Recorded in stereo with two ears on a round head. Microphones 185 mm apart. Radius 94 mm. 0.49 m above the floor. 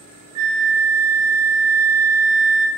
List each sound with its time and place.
0.3 s a flute: 50° right (ahead or behind), 0.8 m